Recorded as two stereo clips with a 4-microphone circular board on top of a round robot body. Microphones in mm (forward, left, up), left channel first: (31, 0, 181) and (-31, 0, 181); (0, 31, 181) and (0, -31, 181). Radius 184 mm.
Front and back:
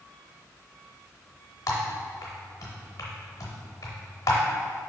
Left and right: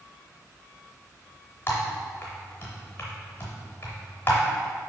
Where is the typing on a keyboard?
40° left, 0.5 m.